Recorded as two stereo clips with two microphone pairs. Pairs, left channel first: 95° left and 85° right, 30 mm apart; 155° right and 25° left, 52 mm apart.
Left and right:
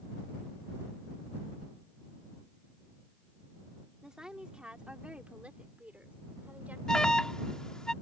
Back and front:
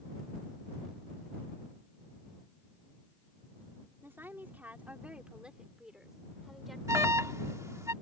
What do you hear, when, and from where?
4.0 s a woman speaking: 20° right; by 6.8 s 65° right
6.9 s an alarm: 30° left